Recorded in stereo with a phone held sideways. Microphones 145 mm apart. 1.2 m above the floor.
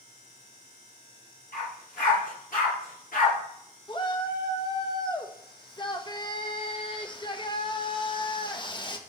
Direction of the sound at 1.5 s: 80° left.